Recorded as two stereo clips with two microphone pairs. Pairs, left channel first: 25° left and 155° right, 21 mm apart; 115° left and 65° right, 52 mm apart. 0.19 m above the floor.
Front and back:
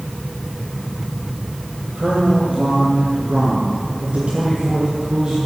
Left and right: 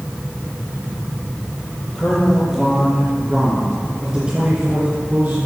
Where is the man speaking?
165° right, 4.5 m; by 5.4 s 105° right, 2 m.